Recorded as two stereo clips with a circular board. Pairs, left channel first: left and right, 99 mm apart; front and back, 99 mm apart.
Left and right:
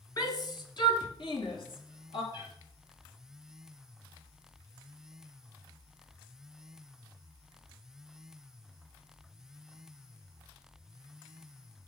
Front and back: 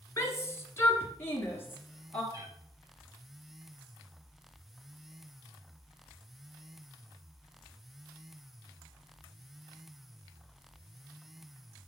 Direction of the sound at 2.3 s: 125° left.